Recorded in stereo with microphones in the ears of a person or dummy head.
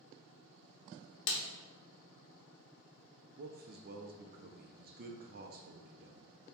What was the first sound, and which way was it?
A snare drum, 65° left (ahead or behind).